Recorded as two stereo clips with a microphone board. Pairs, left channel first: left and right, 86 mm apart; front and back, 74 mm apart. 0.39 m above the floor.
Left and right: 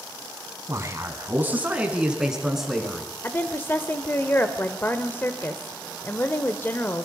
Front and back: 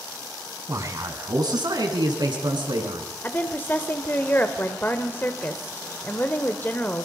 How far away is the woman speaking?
About 1.2 m.